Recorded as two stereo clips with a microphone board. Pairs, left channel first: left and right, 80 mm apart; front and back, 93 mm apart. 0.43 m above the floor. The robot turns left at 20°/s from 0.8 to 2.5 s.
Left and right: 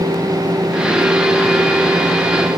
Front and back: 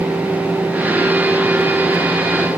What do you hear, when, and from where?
Only background noise.